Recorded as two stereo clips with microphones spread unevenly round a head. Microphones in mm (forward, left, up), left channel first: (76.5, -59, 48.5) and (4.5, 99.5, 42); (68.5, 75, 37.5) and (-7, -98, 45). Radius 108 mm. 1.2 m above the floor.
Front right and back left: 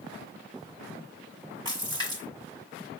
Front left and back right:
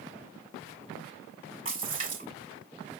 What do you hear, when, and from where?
1.6 s a splash: 175° right, 5.5 m